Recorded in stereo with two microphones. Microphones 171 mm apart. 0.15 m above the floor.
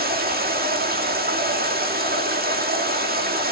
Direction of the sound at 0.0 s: 65° right (ahead or behind).